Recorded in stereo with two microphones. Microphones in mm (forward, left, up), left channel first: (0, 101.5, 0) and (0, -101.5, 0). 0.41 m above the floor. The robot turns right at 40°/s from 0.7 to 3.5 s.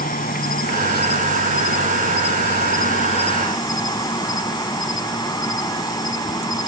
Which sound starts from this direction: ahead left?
An insect, at 0.0 s.